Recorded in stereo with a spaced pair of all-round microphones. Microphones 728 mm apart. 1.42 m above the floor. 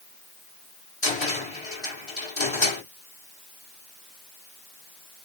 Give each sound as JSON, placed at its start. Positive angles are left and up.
{"t": 1.0, "sound": "a cupboard door", "side_deg": 40, "distance_m": 1.9}